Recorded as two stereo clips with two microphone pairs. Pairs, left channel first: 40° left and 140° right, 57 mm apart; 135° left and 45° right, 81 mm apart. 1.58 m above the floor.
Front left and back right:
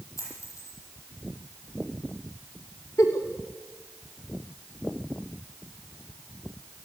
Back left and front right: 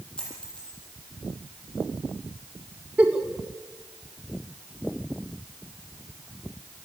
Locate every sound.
0.2 s a dropped coin: 60° left, 9 m
3.0 s a giggle: 30° left, 2.5 m